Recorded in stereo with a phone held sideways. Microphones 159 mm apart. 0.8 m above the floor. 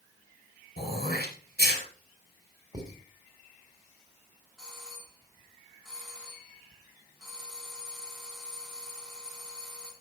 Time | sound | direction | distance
0.8 | throat clearing | 75° left (ahead or behind) | 4 m
2.7 | writing | 25° right (ahead or behind) | 3 m
4.6 | a doorbell | centre (ahead or behind) | 4 m